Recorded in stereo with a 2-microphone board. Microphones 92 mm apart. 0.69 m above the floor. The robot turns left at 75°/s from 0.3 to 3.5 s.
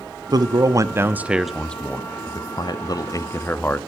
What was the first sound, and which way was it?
A man speaking, 45° right (ahead or behind).